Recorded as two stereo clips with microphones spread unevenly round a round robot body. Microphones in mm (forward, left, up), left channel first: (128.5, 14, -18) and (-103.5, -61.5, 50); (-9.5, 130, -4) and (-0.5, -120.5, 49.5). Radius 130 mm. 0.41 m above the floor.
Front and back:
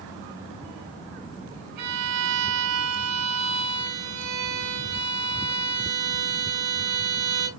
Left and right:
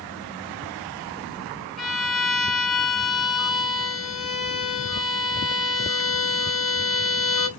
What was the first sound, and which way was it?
A violin, straight behind.